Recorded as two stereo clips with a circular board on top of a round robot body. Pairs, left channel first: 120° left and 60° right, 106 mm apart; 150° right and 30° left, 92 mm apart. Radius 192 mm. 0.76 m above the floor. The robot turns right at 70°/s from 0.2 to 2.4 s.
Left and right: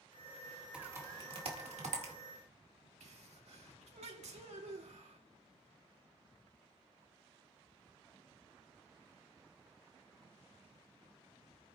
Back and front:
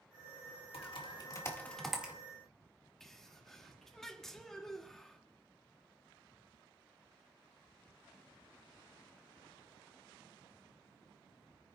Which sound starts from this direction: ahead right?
A sneeze, at 3.0 s.